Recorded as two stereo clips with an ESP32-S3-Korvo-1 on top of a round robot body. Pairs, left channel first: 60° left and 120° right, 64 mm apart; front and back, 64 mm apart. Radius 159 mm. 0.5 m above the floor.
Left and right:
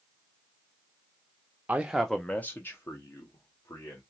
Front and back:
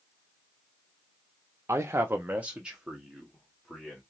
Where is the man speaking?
175° right, 0.8 m; by 4.0 s 90° left, 1.9 m.